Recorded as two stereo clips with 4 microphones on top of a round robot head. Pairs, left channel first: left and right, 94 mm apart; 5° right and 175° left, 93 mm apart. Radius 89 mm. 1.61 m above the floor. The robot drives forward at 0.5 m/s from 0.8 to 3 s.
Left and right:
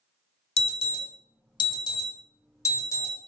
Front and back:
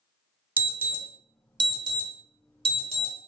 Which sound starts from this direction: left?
An alarm, at 0.6 s.